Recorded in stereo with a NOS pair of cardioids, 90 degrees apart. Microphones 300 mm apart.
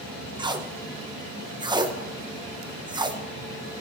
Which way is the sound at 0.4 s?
15° right.